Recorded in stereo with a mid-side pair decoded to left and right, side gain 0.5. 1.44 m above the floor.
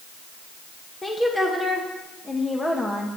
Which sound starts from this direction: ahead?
A woman speaking, at 1.0 s.